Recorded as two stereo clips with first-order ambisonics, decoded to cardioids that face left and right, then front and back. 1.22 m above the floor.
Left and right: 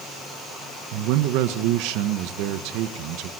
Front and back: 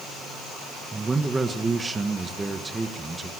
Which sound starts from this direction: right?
A man speaking, at 0.9 s.